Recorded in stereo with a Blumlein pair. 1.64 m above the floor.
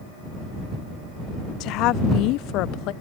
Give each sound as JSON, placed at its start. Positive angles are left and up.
{"t": 1.6, "sound": "a woman speaking", "azimuth_deg": 40}